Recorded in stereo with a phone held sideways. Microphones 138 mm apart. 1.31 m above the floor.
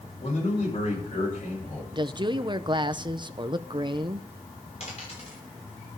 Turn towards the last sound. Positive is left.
turn(degrees=50)  # may be behind; listen again after turning